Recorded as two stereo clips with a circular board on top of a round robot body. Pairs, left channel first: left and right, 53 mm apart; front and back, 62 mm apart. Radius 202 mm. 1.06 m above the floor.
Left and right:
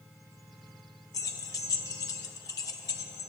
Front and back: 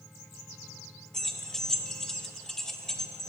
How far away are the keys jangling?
About 0.6 m.